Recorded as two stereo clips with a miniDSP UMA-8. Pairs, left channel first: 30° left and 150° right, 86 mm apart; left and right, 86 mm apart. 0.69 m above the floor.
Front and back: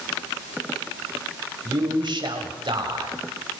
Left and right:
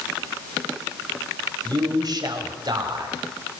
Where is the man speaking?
125° right, 4 m.